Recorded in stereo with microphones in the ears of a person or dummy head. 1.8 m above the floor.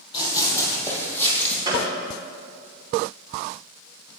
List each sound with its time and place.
0.1 s running footsteps: 20° left (ahead or behind), 3.5 m; by 1.6 s 5° left (ahead or behind), 3.5 m
1.6 s a gunshot: 25° right (ahead or behind), 3 m